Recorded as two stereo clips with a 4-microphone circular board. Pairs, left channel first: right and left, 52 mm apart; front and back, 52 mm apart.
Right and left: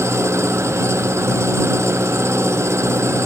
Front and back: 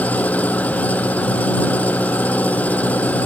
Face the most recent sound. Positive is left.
turn(degrees=60)